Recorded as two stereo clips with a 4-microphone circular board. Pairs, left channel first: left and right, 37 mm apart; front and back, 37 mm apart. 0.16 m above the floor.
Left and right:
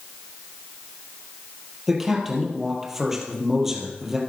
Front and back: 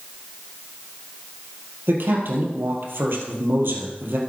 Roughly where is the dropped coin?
No dropped coin in this recording.